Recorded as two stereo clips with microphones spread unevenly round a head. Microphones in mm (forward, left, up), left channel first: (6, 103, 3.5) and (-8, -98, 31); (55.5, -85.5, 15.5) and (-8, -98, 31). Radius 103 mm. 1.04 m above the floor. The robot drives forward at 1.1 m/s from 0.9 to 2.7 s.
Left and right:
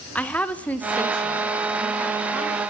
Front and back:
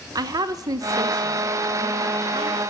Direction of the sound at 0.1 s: 160° left.